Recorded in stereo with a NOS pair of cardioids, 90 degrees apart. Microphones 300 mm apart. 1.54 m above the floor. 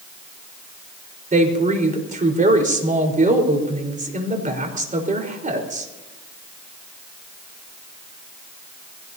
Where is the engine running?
No engine running in this recording.